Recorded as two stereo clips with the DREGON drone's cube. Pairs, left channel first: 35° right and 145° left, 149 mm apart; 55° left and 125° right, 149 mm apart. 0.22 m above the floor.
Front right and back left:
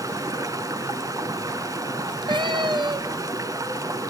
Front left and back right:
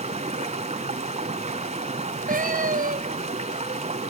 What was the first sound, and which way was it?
Running water, 155° right.